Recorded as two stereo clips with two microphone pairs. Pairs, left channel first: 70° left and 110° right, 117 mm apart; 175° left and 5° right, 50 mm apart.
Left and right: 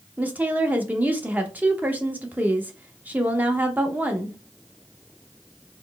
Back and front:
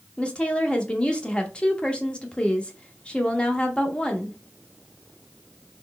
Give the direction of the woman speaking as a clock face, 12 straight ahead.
5 o'clock.